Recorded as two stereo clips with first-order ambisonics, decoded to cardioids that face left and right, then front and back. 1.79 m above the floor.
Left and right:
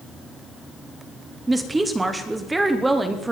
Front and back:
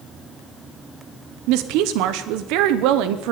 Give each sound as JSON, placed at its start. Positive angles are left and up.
{"t": 1.5, "sound": "a woman speaking", "azimuth_deg": -170, "distance_m": 0.9}